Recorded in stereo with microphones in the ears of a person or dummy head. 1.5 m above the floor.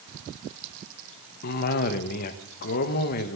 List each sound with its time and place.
1.4 s a cough: 50° left (ahead or behind), 1.3 m